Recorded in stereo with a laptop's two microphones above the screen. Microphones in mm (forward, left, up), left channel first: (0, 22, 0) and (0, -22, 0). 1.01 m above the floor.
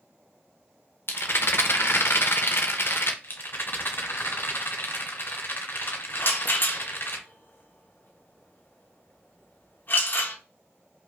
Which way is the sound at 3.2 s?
50° left (ahead or behind).